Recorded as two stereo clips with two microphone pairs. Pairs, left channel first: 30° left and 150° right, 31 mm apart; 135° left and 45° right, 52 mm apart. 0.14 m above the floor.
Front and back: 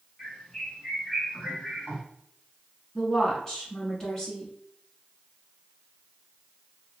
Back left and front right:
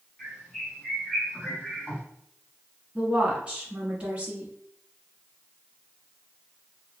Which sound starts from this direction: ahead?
A woman speaking, at 3.0 s.